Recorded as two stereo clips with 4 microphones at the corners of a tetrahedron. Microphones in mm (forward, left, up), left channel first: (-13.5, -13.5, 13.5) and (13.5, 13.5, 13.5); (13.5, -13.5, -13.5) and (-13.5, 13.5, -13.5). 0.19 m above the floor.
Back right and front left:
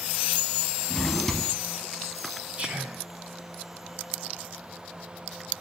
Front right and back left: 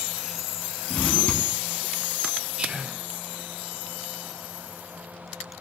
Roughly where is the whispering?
Left.